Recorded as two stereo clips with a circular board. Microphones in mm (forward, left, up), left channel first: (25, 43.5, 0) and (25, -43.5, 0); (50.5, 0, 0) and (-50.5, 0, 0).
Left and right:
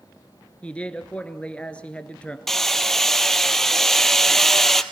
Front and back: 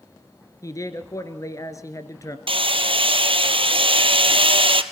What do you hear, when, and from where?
0.6 s a man speaking: 20° left, 1.6 m
2.5 s hammering: 175° left, 1.0 m